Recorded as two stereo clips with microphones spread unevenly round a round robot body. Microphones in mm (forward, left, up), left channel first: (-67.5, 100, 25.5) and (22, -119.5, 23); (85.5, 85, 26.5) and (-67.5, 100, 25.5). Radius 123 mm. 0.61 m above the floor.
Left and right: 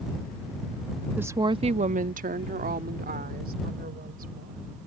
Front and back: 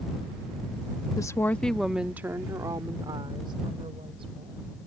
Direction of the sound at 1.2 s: Straight ahead.